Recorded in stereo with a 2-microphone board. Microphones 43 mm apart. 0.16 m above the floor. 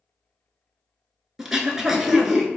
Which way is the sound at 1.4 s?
10° right (ahead or behind).